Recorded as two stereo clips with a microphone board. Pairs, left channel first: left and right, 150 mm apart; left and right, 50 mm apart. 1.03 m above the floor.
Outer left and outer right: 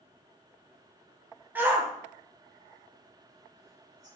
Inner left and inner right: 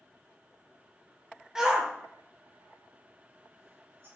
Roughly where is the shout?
Centre.